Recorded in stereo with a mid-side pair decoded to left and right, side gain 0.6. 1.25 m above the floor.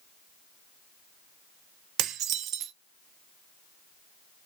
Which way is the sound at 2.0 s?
60° right.